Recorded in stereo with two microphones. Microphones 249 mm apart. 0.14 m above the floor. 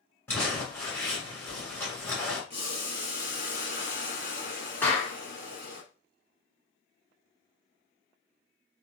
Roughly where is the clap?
Centre.